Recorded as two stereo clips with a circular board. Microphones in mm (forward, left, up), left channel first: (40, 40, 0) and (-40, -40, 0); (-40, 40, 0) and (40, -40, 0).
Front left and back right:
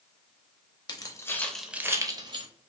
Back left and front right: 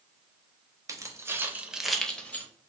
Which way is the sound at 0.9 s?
5° left.